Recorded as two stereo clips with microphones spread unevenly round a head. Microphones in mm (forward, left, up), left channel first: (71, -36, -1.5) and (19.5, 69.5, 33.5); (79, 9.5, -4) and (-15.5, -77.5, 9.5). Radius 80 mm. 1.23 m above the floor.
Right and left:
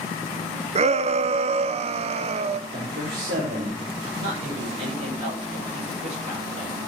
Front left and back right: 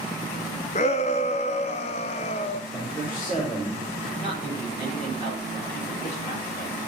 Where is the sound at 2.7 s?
110° left, 4.5 m.